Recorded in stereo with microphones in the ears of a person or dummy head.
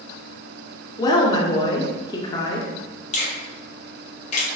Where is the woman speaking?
20° left (ahead or behind), 0.5 m.